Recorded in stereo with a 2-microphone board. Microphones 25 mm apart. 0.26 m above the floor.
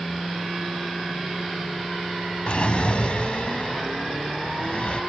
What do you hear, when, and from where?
2.5 s a drawer: 50° left (ahead or behind)